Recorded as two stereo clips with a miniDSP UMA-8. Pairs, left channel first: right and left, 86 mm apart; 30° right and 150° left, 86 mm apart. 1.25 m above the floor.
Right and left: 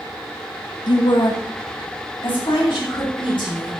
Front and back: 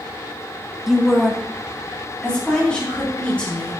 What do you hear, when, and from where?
0.9 s a woman speaking: 125° right, 0.8 m; by 3.7 s 110° right, 4.5 m